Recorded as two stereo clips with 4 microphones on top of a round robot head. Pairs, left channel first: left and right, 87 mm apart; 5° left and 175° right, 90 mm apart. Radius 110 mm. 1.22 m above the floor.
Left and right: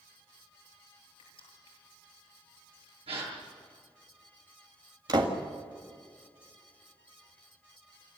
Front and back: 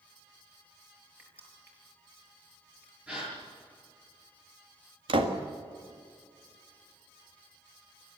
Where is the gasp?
95° right, 7.5 m.